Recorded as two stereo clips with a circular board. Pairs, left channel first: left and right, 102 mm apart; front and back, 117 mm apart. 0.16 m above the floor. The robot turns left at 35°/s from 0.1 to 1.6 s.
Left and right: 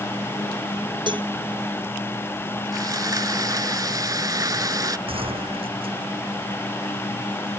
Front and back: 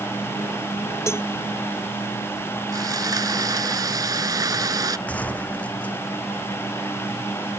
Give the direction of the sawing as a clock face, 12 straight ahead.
4 o'clock.